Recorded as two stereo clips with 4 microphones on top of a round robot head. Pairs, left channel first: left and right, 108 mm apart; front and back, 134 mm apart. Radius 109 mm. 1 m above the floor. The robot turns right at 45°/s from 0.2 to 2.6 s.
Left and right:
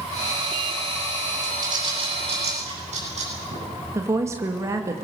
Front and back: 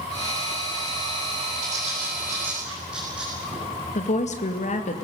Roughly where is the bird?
Behind right.